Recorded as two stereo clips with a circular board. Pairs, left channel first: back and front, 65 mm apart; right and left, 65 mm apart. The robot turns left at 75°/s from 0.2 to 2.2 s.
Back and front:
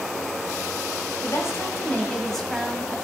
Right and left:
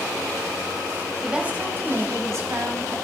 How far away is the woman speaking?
About 1.7 m.